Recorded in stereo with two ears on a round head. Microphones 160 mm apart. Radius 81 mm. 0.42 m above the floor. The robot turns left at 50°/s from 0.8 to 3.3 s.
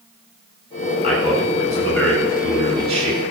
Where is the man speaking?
55° left, 5 m; by 3.2 s 50° right, 5 m.